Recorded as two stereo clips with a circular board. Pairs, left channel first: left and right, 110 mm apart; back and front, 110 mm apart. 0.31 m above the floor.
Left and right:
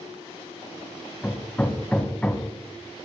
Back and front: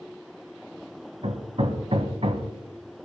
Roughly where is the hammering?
Ahead.